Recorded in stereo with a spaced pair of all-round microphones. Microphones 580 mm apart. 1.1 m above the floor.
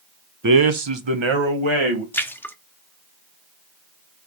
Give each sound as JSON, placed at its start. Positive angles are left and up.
{"t": 0.4, "sound": "a man speaking", "side_deg": -35, "distance_m": 0.7}
{"t": 2.1, "sound": "a splash", "side_deg": 5, "distance_m": 0.7}